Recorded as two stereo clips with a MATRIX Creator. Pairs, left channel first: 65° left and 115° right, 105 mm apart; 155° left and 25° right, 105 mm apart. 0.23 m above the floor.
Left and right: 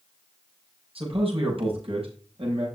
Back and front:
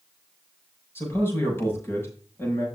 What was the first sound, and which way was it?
A man speaking, 135° right.